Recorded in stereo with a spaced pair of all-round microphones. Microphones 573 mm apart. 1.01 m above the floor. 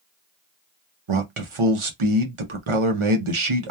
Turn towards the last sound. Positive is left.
turn(degrees=-60)  # may be behind; listen again after turning